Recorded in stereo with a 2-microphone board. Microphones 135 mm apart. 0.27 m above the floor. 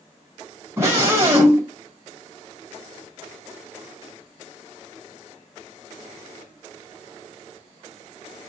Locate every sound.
0.8 s a scream: 20° right (ahead or behind), 1.3 m